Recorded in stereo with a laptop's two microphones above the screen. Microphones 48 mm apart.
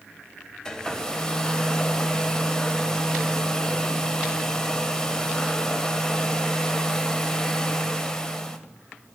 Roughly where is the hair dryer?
Centre.